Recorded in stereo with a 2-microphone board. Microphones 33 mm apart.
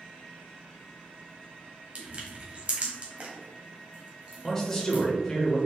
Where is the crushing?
40° right (ahead or behind), 1.1 m.